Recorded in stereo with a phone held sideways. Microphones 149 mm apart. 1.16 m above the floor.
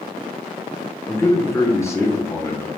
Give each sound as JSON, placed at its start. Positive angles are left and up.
{"t": 1.1, "sound": "a man speaking", "side_deg": 20, "distance_m": 0.8}